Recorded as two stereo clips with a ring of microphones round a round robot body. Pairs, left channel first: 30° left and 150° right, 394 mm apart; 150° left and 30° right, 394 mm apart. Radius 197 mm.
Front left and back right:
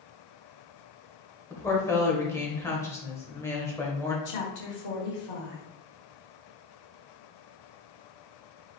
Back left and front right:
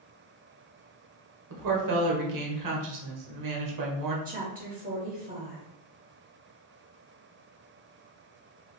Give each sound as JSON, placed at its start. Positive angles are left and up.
{"t": 1.5, "sound": "a woman speaking", "azimuth_deg": -50, "distance_m": 1.1}
{"t": 4.2, "sound": "a woman speaking", "azimuth_deg": 30, "distance_m": 1.2}